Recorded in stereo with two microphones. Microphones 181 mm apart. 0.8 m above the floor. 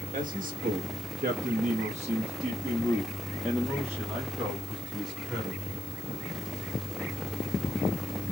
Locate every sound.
0.1 s a man speaking: 45° right (ahead or behind), 1.3 m; by 5.6 s 5° right (ahead or behind), 2.5 m